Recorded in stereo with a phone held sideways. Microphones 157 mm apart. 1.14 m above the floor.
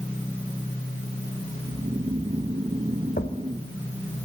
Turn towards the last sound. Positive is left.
turn(degrees=80)